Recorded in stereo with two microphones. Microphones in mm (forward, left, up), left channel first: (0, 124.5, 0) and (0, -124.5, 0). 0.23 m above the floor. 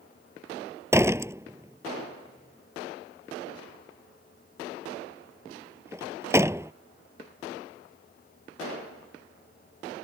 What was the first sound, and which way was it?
A door slam, 10° right (ahead or behind).